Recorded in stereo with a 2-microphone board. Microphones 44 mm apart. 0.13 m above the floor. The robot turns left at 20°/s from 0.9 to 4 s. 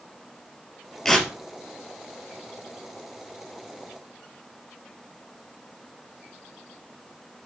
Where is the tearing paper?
10° left (ahead or behind), 2.5 m; by 1.3 s 5° left (ahead or behind), 2.5 m.